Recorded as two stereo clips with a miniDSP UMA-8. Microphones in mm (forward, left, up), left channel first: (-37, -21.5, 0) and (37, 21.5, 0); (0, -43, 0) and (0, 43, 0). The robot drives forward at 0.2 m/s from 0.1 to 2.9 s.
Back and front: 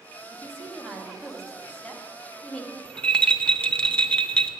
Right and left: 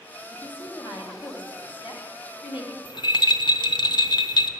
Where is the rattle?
75° right, 0.7 m.